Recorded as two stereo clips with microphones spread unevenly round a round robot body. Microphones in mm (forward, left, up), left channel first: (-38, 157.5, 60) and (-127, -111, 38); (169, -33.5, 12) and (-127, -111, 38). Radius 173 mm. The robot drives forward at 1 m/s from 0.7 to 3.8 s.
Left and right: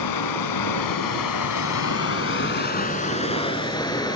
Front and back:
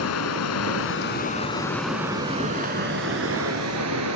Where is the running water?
65° left, 1.7 m; by 4.2 s 145° left, 3 m.